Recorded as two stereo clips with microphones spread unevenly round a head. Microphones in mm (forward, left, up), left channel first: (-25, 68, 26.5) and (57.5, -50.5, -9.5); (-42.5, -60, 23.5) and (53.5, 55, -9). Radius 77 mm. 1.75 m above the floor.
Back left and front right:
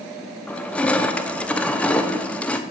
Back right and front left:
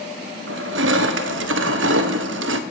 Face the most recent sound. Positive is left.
turn(degrees=45)